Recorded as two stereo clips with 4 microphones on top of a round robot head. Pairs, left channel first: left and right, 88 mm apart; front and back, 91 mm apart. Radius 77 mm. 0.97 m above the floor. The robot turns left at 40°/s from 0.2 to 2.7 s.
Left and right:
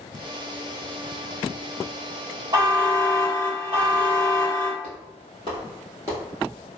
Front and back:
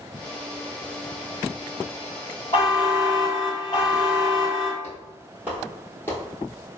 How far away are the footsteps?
About 1.5 m.